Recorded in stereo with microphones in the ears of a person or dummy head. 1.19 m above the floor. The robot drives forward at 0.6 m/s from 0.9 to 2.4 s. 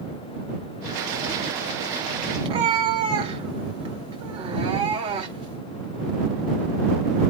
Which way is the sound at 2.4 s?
30° right (ahead or behind).